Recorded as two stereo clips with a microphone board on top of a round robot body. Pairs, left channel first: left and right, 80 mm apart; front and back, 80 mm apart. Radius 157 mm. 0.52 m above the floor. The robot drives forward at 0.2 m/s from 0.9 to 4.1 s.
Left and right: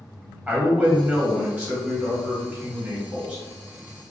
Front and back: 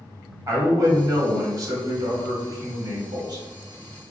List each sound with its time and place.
0.5 s a man speaking: 150° right, 1.2 m; by 3.4 s 160° right, 1.6 m